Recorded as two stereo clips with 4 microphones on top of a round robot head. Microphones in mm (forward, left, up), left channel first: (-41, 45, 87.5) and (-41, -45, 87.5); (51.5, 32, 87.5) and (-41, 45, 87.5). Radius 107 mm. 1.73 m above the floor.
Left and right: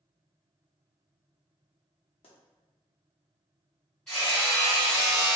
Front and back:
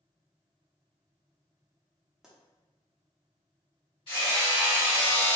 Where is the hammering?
10° left, 1.3 m.